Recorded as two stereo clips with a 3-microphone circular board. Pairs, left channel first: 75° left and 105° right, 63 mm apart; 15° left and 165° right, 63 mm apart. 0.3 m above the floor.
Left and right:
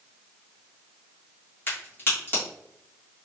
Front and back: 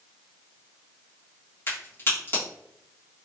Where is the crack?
45° left, 1.7 m.